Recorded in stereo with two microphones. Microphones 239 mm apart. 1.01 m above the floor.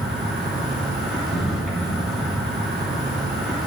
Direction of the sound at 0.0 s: Centre (ahead or behind).